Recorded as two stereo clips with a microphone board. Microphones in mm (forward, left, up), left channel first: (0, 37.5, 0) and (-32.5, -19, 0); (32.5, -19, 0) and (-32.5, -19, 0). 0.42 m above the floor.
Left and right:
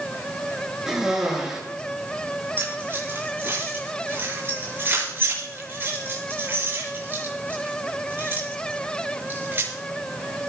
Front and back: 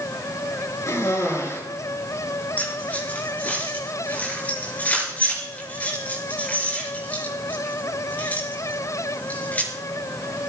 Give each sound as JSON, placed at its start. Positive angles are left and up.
{"t": 0.9, "sound": "a cough", "azimuth_deg": -40, "distance_m": 6.5}
{"t": 2.6, "sound": "keys jangling", "azimuth_deg": -65, "distance_m": 5.5}